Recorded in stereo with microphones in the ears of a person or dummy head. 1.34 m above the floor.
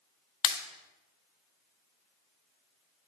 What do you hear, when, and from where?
0.4 s a pop: 30° left (ahead or behind), 0.9 m